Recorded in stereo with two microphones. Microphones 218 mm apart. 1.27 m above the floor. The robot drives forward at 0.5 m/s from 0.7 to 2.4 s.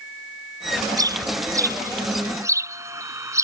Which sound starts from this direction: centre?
A bird, at 1.0 s.